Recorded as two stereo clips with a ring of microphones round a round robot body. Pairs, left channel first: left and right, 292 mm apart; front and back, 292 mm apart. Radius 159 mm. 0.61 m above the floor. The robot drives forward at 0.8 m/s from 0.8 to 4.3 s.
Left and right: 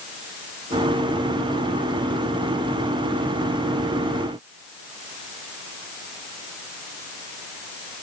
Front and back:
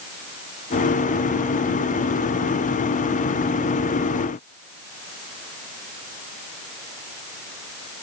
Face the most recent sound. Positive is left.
No sound to turn to.